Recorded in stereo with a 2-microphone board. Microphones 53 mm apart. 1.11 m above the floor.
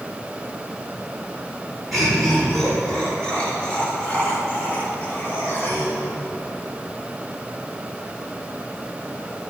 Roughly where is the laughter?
Centre.